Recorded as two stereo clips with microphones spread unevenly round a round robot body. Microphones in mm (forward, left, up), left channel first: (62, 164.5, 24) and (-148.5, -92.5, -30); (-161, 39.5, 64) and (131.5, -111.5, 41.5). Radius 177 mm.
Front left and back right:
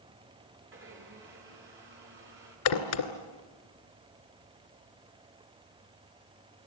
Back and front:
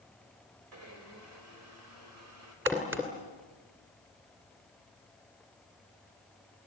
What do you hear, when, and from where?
0.7 s a blender: 70° right, 4.5 m
2.7 s a crack: 55° left, 2 m